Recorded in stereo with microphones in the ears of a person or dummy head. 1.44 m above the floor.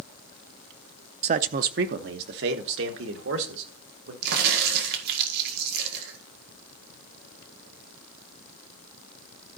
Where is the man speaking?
35° right (ahead or behind), 0.6 m; by 4.1 s 70° right (ahead or behind), 2.5 m.